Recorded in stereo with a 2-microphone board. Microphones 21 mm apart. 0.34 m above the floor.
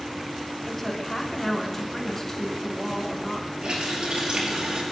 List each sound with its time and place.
0.7 s a woman speaking: 20° left (ahead or behind), 4 m
3.6 s a running tap: 55° right (ahead or behind), 4.5 m